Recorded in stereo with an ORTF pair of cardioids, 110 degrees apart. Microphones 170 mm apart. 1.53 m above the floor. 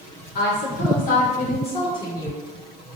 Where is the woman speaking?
65° left, 1.4 m; by 2.5 s 15° left, 1.3 m.